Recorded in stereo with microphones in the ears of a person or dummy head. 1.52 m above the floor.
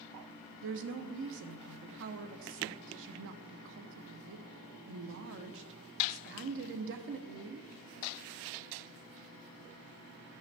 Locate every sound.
0.6 s a woman speaking: 65° right (ahead or behind), 0.8 m